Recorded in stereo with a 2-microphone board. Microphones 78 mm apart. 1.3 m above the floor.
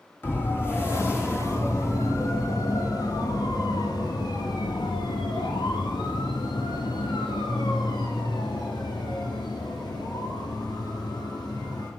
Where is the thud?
I don't hear a thud.